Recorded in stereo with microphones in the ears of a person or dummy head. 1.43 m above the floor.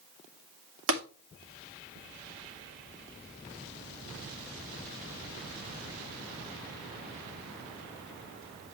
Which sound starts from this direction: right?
Tapping, at 0.9 s.